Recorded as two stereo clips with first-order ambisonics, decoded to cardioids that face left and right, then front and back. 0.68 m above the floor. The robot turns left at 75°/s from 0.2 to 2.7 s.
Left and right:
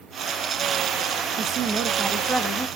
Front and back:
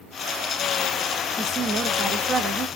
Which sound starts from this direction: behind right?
A woman speaking, at 1.4 s.